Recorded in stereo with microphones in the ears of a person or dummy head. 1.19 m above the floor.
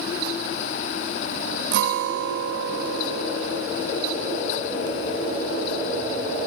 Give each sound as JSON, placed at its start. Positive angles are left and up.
{"t": 1.7, "sound": "a guitar", "side_deg": -50, "distance_m": 1.3}